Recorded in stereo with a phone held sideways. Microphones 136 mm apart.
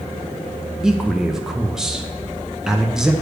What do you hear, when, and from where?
0.8 s a man speaking: 5° right (ahead or behind), 0.5 m